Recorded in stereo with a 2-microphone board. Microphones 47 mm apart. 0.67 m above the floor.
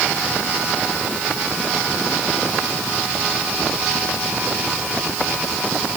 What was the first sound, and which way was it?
Only background noise.